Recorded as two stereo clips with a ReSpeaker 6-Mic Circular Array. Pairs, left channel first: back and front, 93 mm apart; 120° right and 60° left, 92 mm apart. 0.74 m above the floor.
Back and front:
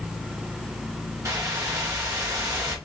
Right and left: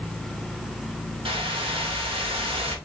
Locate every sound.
1.2 s a whoosh: 55° left, 1.0 m